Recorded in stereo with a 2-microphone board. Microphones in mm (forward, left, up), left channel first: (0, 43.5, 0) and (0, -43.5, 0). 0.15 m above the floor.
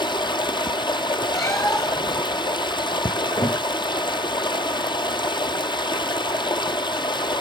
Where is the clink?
I don't hear a clink.